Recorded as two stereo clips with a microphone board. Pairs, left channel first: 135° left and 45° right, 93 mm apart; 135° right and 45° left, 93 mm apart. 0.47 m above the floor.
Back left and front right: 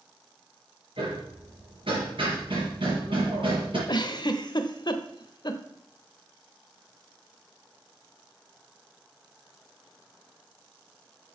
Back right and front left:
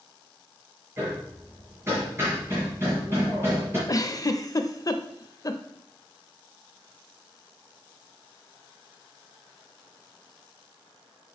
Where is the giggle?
175° left, 0.6 m.